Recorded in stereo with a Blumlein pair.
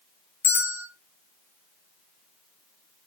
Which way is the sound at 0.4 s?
65° left.